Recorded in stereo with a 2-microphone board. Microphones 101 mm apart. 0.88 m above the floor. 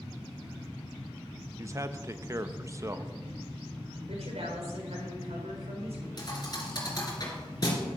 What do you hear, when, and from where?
1.6 s a man speaking: 30° right (ahead or behind), 0.7 m
4.1 s a woman speaking: 80° right, 3.5 m
6.2 s a thud: 40° left (ahead or behind), 3 m